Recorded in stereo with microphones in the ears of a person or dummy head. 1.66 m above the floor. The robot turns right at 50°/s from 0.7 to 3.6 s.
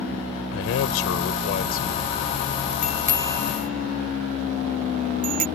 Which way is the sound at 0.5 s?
80° left.